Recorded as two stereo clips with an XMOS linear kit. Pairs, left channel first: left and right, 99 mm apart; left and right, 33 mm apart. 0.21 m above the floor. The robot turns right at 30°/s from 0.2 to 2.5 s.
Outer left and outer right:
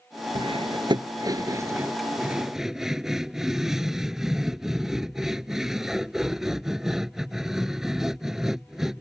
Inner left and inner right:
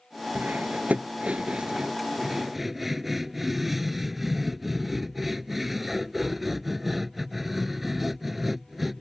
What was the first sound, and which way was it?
Cutlery clinking, 60° right (ahead or behind).